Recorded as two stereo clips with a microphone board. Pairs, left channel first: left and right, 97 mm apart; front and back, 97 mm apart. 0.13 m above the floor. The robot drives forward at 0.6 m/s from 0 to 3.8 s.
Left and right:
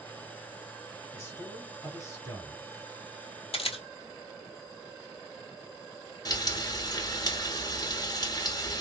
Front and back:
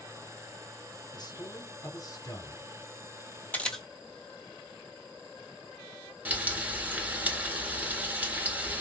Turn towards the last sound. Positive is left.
turn(degrees=110)